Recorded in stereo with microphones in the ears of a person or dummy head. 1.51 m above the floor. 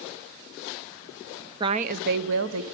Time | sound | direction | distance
1.6 | a woman speaking | 25° right (ahead or behind) | 0.6 m